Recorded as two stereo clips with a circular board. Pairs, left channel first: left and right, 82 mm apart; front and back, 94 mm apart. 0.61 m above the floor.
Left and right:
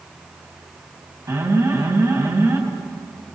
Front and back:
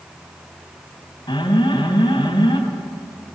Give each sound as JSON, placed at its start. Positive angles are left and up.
{"t": 1.3, "sound": "an alarm", "azimuth_deg": -35, "distance_m": 4.0}